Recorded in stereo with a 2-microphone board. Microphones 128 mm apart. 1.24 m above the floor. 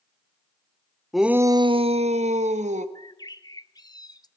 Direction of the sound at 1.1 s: Centre (ahead or behind).